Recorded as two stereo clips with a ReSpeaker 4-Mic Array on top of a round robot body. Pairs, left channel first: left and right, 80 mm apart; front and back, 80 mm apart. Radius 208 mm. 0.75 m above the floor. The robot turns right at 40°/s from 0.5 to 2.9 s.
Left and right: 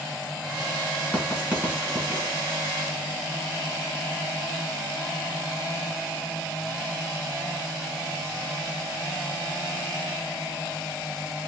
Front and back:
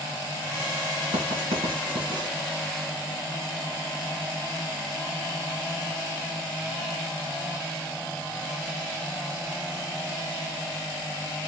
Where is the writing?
175° left, 2.5 m; by 2.3 s 135° right, 2.5 m.